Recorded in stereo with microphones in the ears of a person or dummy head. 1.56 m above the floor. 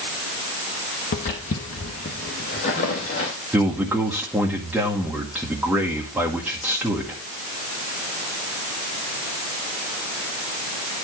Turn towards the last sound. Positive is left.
turn(degrees=-5)  # may be behind; listen again after turning